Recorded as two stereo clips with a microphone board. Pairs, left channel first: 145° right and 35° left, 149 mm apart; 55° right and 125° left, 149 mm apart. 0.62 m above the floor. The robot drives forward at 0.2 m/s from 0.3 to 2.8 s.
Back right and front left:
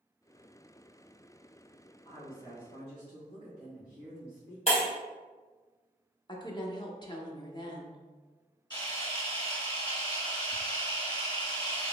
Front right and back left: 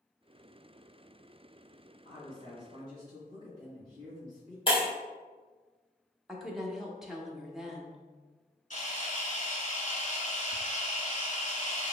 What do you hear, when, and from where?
2.0 s a woman speaking: 95° right, 1.5 m; by 4.6 s 105° right, 1.5 m
4.7 s breaking glass: 105° right, 1.9 m
6.3 s a woman speaking: 150° right, 0.6 m
8.7 s a camera shutter: 90° right, 1.6 m